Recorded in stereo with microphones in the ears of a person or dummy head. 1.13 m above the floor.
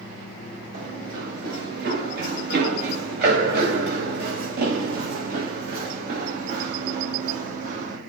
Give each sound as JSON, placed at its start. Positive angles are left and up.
{"t": 0.7, "sound": "running footsteps", "side_deg": -60, "distance_m": 8.5}